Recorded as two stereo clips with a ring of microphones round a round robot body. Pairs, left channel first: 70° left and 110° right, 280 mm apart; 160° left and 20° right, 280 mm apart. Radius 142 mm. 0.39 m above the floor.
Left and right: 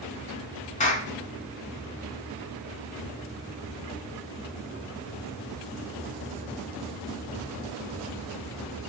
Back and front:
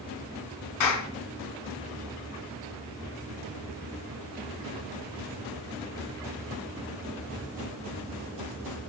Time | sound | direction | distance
0.8 | a clap | 135° left | 3.5 m